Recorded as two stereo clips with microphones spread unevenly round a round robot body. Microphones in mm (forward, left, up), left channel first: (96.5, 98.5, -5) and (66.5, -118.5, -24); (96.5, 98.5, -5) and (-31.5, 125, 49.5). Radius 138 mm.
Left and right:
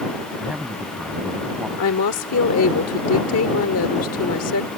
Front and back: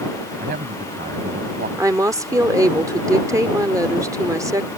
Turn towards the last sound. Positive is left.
turn(degrees=95)